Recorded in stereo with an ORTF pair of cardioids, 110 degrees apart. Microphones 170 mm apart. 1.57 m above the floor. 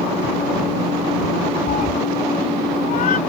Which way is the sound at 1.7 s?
55° left.